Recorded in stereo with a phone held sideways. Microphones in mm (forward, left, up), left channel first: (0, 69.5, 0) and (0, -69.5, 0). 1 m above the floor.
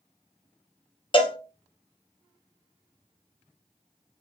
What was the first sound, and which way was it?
A cowbell, 35° left (ahead or behind).